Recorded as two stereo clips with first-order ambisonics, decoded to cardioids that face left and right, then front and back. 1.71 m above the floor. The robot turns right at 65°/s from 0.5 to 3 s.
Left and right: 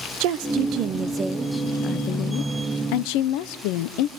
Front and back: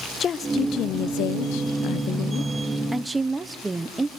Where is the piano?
No piano in this recording.